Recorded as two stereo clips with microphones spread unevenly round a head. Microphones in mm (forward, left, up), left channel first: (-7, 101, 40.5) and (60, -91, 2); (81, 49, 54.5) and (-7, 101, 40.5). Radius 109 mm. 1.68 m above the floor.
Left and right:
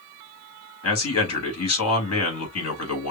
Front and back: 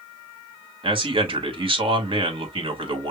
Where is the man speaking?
115° left, 2.5 m.